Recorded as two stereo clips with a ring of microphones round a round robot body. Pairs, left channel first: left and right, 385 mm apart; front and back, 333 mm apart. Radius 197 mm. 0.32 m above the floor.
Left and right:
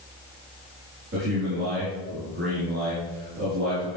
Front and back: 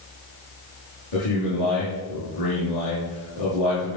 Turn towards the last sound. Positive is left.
turn(degrees=-25)